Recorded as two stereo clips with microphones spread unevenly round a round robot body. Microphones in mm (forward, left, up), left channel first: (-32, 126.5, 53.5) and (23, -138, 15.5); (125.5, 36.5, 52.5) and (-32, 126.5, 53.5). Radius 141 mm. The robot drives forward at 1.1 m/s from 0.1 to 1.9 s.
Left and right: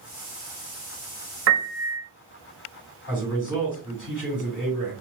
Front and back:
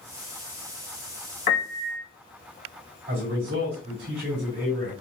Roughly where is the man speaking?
Behind.